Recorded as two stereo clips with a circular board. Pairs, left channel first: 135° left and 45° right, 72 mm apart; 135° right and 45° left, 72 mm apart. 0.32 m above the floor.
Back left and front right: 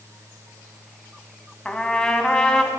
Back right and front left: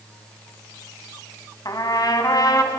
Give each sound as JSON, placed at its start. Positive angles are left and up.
{"t": 1.6, "sound": "a trumpet", "azimuth_deg": -150, "distance_m": 2.5}